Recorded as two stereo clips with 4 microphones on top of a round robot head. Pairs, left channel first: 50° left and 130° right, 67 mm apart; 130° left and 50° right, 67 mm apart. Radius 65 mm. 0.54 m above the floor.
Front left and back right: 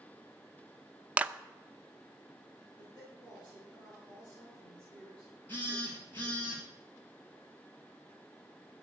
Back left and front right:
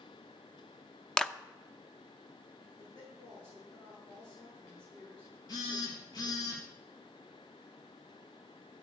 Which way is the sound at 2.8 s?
130° left.